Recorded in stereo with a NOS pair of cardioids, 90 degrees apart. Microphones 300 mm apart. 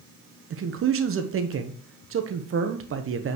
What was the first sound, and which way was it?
A man speaking, 45° right.